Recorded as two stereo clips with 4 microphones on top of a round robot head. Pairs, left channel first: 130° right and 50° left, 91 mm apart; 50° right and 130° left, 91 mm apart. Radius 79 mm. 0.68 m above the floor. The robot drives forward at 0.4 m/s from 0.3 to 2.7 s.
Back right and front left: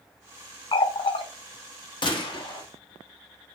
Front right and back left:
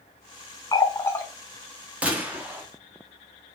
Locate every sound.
0.7 s a running tap: 95° right, 0.6 m; by 1.2 s 115° right, 0.6 m
2.0 s a gunshot: 155° right, 1.0 m; by 2.6 s 160° right, 1.2 m